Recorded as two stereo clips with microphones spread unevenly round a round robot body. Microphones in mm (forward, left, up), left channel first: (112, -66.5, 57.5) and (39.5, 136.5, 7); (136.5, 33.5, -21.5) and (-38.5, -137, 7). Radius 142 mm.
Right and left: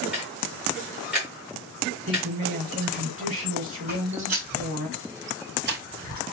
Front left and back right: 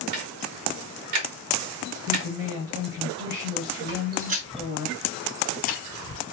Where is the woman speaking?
165° left, 2 m.